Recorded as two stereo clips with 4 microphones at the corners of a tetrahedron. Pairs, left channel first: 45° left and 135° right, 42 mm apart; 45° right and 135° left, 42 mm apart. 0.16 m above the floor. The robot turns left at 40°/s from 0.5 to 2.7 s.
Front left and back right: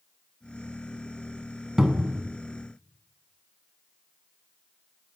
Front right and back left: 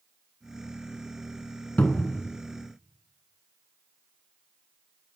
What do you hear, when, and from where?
1.8 s a cupboard door: 60° right, 0.5 m; by 2.2 s 80° right, 0.5 m